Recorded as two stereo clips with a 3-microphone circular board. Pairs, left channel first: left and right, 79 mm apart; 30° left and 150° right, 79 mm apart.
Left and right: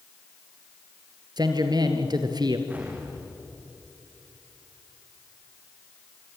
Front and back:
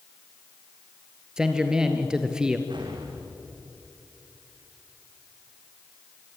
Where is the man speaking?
70° right, 2.5 m.